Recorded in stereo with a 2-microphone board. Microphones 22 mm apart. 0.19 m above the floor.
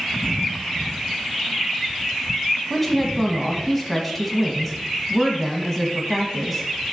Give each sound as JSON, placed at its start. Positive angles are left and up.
{"t": 2.7, "sound": "a woman speaking", "side_deg": 0, "distance_m": 1.0}